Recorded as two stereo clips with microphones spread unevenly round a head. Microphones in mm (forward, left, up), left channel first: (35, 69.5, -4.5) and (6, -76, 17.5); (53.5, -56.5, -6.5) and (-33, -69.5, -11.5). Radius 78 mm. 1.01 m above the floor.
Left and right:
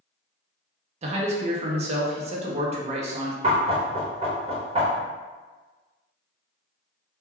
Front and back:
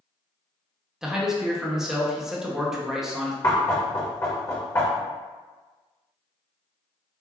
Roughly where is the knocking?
Ahead right.